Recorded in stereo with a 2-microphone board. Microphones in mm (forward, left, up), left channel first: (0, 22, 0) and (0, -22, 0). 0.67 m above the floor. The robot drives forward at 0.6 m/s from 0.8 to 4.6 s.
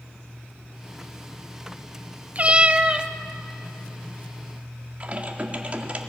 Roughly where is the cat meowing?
Right.